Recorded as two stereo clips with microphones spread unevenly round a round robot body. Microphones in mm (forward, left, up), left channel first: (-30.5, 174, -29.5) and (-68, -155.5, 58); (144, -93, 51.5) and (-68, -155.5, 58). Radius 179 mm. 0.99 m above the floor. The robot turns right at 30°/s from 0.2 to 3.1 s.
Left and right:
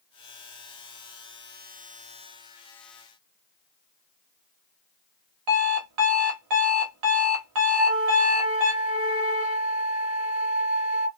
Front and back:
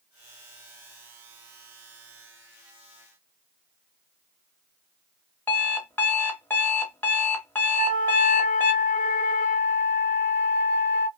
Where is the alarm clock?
65° right, 0.8 m.